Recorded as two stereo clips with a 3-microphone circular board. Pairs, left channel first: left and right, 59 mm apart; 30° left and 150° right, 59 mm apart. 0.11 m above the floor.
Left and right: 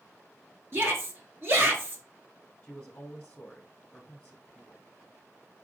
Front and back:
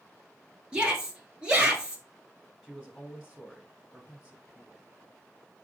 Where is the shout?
85° right, 1.5 m.